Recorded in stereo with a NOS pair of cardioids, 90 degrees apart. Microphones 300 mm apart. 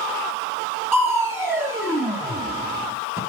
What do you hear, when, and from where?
0.9 s crushing: 10° right, 0.9 m